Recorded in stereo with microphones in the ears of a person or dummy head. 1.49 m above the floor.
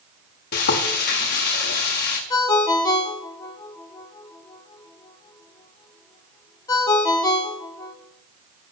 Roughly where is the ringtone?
Left.